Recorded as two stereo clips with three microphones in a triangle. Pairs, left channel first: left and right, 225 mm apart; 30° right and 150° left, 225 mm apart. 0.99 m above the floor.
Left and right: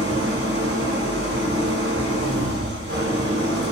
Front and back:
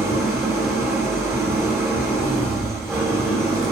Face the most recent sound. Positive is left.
turn(degrees=-130)